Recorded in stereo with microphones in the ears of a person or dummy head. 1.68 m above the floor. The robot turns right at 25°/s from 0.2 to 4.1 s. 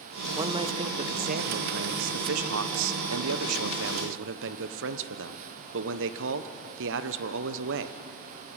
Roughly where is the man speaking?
Behind.